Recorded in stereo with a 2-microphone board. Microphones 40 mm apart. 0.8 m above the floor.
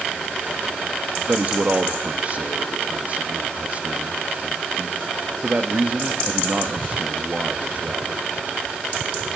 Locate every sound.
1.3 s a man speaking: 40° right (ahead or behind), 1.2 m